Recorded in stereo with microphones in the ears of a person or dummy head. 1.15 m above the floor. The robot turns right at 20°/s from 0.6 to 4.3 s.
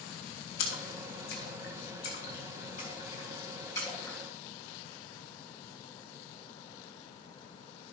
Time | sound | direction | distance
0.6 | a splash | 80° left | 3.5 m